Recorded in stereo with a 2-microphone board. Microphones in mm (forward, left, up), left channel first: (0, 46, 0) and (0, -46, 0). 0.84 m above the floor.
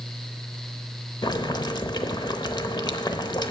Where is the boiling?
50° left (ahead or behind), 0.7 m.